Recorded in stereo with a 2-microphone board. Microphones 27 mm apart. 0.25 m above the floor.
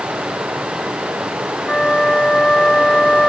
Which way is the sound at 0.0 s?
75° right (ahead or behind).